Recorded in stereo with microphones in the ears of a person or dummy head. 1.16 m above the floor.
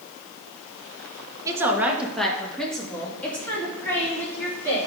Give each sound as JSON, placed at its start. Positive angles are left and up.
{"t": 1.4, "sound": "a woman speaking", "side_deg": -15, "distance_m": 0.7}